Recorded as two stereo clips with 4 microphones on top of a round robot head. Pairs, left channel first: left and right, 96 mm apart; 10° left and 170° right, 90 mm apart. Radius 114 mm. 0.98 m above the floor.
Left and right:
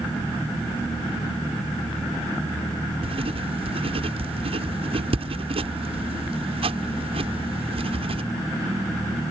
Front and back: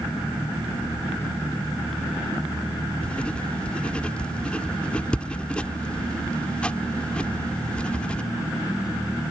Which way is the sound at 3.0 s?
70° right.